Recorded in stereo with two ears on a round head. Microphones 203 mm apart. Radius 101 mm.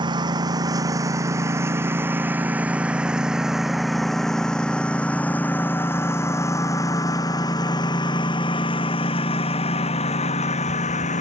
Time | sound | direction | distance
0.0 | a lawn mower | 20° right (ahead or behind) | ?